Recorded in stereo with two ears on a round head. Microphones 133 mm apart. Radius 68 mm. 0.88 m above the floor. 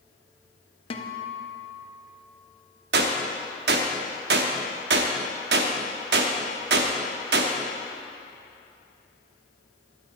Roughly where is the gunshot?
Right.